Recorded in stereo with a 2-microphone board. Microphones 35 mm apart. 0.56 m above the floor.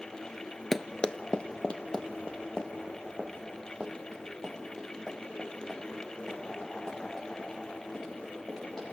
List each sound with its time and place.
0.7 s running footsteps: 10° left (ahead or behind), 0.6 m; by 8.8 s 20° left (ahead or behind), 11 m